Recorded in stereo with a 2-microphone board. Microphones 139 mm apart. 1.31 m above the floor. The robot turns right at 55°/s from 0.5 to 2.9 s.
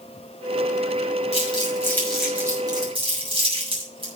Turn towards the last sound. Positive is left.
turn(degrees=-40)  # may be behind; listen again after turning